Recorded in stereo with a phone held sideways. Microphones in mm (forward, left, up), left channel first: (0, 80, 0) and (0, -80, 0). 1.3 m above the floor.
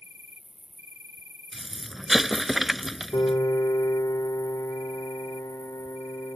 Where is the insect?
40° left (ahead or behind).